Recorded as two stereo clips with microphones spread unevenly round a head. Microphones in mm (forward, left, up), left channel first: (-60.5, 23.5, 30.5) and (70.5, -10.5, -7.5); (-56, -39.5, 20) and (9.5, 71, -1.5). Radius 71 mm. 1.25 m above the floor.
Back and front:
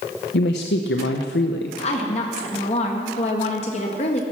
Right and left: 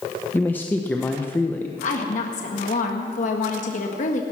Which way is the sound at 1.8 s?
145° right.